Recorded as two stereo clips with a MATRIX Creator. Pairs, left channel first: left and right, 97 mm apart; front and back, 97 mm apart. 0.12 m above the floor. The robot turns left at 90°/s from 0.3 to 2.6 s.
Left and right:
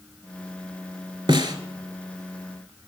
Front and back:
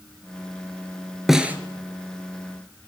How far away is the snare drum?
About 0.6 m.